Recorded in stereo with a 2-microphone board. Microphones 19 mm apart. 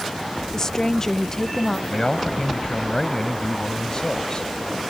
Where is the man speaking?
40° left (ahead or behind).